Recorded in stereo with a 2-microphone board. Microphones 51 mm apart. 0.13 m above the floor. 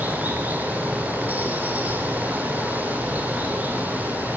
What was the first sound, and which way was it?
Running water, 30° right (ahead or behind).